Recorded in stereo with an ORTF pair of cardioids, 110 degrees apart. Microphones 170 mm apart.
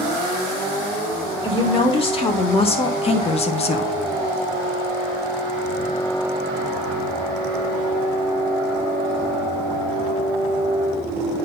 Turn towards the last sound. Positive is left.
turn(degrees=55)